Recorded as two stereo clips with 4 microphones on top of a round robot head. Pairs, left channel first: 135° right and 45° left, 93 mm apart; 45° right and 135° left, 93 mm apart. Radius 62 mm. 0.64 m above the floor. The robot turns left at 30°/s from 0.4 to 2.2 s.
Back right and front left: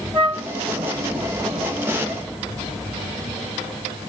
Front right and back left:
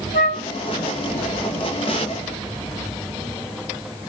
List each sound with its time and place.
0.1 s a flute: 25° right, 1.2 m; by 0.5 s 30° right, 1.2 m